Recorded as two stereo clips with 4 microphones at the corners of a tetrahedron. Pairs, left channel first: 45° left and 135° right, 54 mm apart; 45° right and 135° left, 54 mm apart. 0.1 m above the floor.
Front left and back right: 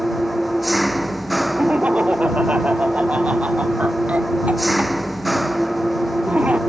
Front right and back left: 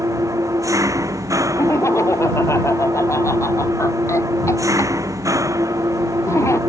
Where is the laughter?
70° right.